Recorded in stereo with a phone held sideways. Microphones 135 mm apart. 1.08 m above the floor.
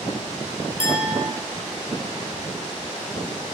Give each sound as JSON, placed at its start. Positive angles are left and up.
{"t": 0.8, "sound": "a clink", "side_deg": 65, "distance_m": 3.0}